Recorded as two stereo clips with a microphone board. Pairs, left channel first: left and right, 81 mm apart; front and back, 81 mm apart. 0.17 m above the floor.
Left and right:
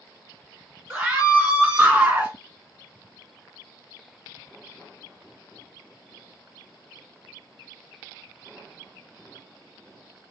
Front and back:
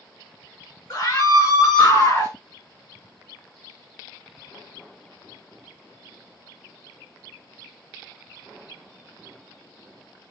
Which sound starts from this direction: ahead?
A scream, at 0.9 s.